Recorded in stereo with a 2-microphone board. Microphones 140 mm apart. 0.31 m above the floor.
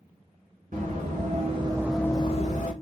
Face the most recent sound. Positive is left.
turn(degrees=65)  # may be behind; listen again after turning